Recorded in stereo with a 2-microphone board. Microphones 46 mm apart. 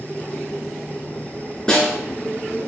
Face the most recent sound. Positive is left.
turn(degrees=15)  # may be behind; listen again after turning